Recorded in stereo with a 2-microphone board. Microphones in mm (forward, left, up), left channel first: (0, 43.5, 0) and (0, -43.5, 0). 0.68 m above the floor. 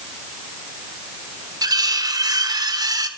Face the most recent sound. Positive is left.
turn(degrees=-50)  # may be behind; listen again after turning